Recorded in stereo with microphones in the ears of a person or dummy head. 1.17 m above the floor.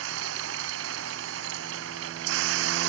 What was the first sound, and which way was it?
A machine running, 75° right (ahead or behind).